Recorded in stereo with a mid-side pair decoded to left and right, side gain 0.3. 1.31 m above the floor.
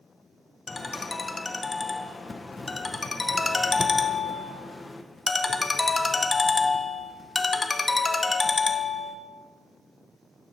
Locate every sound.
0.7 s a ringtone: 40° left, 0.6 m